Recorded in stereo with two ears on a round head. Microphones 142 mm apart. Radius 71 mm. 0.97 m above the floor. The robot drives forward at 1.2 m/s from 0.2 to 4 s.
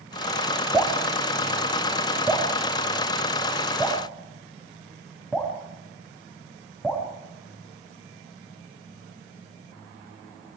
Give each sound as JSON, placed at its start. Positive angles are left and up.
{"t": 0.7, "sound": "dripping", "side_deg": -5, "distance_m": 2.5}